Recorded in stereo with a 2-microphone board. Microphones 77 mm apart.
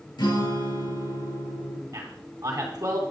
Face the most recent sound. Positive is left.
turn(degrees=-45)  # may be behind; listen again after turning